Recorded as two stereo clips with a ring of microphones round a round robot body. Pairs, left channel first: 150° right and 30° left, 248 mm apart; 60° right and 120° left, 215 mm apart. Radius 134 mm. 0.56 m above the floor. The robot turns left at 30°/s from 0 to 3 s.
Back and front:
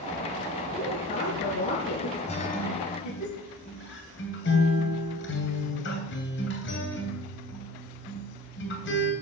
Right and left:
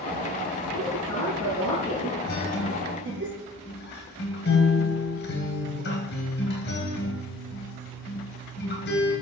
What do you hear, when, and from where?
0.7 s a woman speaking: 80° right, 8.5 m; by 3.3 s 150° right, 8.5 m
2.3 s a guitar: 85° right, 3 m; by 9.1 s 105° right, 3 m